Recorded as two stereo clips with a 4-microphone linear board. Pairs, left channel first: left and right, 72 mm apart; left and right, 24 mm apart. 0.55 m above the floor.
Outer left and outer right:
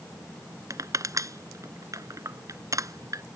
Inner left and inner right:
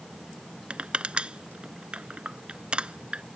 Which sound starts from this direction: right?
Crushing, at 0.7 s.